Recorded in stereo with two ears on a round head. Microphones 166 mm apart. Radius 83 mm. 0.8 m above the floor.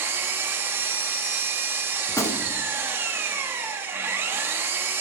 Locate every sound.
0.0 s an engine running: 15° right (ahead or behind), 0.8 m
2.1 s a gunshot: 15° left (ahead or behind), 0.8 m